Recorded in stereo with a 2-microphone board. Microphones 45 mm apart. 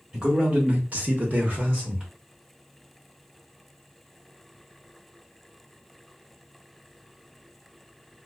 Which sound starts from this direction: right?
A man speaking, at 0.1 s.